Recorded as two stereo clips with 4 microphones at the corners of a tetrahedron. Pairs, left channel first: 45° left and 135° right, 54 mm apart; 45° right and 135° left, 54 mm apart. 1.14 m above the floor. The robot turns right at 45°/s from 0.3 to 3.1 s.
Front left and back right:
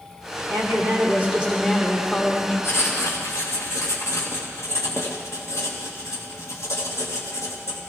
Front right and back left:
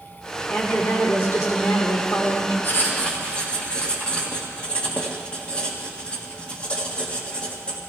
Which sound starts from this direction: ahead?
Writing, at 2.6 s.